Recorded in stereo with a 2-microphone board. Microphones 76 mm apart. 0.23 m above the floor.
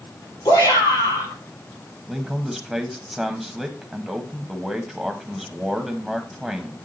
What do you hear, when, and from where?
0.5 s a shout: 65° left (ahead or behind), 5 m
2.1 s a man speaking: 5° right (ahead or behind), 1.0 m